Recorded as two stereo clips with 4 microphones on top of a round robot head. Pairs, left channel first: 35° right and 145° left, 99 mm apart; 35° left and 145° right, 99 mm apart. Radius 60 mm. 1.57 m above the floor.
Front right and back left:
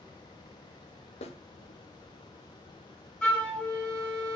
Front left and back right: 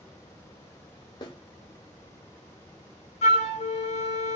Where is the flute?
45° left, 0.8 m.